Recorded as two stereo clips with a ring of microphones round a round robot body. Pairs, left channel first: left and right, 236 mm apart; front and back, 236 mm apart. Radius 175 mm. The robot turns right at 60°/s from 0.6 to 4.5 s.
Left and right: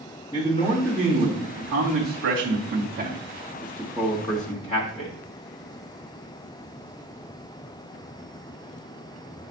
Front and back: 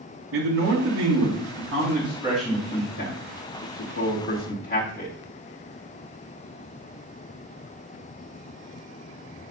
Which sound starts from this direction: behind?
A man speaking, at 0.3 s.